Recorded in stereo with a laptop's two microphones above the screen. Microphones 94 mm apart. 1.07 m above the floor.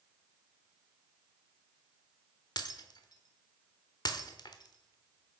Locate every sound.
2.6 s breaking glass: 50° left (ahead or behind), 1.0 m